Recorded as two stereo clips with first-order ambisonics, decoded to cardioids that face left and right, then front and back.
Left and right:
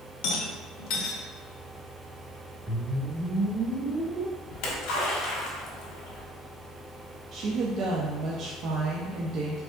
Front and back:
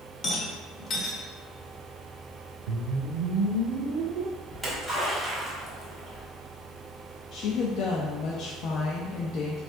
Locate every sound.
0.2 s a rattle: 65° left, 0.9 m
2.7 s a whoosh: 170° right, 0.5 m
4.5 s a splash: 95° left, 1.8 m
7.3 s a woman speaking: 45° right, 0.6 m